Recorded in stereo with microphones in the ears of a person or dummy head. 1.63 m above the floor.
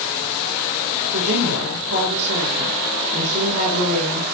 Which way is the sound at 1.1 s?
55° right (ahead or behind).